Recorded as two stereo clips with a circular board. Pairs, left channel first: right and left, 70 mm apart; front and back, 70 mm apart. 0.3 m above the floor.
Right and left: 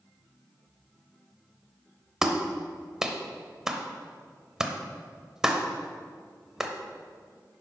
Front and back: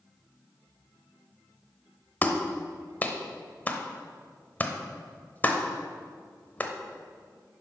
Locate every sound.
2.2 s a clap: 20° left, 0.8 m